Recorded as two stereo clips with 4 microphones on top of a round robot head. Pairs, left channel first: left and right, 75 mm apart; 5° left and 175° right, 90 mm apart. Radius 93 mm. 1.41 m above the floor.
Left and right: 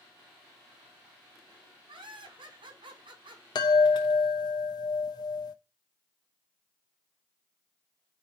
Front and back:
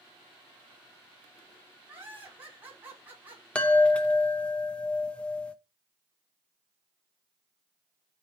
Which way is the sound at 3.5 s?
80° left.